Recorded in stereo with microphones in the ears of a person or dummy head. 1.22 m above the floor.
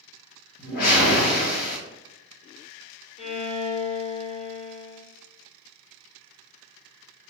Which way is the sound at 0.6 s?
50° left (ahead or behind).